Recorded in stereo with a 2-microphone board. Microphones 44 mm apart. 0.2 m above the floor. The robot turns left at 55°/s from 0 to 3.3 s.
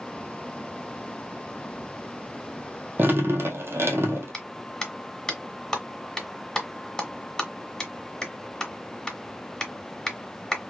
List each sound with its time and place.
3.0 s dripping: 45° right (ahead or behind), 1.2 m; by 4.3 s 65° right (ahead or behind), 1.2 m
4.3 s a clap: 15° left (ahead or behind), 1.5 m